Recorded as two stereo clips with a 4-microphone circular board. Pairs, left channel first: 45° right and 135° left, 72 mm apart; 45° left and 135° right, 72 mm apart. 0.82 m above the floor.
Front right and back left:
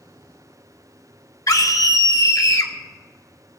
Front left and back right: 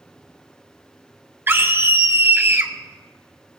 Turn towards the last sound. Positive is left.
turn(degrees=-80)